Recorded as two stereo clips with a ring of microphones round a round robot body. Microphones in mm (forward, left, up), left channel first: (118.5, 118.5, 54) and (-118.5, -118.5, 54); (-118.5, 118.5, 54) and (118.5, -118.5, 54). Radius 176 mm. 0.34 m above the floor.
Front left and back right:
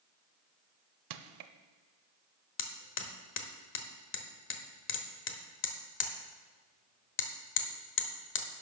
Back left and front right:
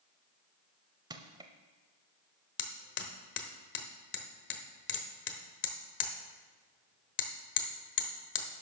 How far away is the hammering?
About 1.1 m.